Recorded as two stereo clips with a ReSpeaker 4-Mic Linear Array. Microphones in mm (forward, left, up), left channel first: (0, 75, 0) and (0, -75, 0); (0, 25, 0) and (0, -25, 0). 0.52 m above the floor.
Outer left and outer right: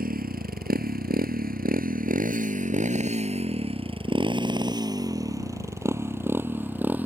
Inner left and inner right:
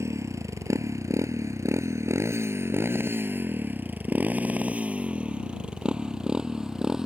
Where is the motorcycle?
75° right (ahead or behind); by 7.1 s 10° right (ahead or behind).